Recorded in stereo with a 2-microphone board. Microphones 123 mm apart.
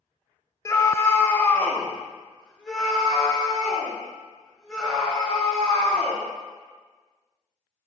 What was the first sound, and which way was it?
A scream, 25° left (ahead or behind).